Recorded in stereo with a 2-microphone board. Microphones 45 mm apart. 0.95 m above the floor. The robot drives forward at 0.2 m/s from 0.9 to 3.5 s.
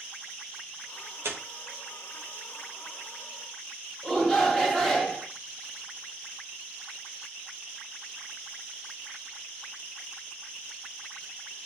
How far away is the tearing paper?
About 1.2 m.